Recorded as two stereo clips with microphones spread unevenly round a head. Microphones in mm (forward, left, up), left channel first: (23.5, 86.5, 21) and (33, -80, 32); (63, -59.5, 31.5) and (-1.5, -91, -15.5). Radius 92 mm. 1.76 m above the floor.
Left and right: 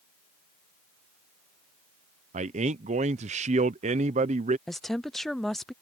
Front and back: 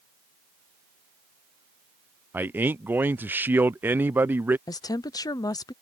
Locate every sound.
2.3 s a man speaking: 60° right
4.7 s a woman speaking: 5° left